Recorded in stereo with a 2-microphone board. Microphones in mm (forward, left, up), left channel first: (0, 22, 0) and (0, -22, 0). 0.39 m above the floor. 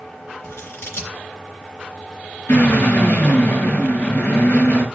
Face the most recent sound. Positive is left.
turn(degrees=65)  # may be behind; listen again after turning